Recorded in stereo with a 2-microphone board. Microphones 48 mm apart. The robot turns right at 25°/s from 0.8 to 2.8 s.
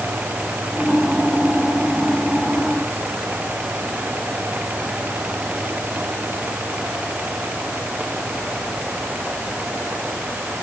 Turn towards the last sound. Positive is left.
No sound to turn to.